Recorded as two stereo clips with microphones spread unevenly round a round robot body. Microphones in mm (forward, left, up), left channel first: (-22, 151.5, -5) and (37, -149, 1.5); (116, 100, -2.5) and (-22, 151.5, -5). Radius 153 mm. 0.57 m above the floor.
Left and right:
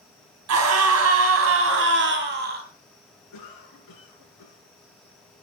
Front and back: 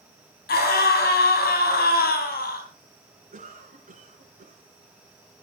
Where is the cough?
135° left, 6.5 m.